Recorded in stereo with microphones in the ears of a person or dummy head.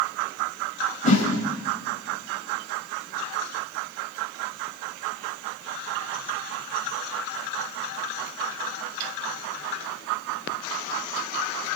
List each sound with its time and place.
1.0 s a whoosh: 35° left (ahead or behind), 4.5 m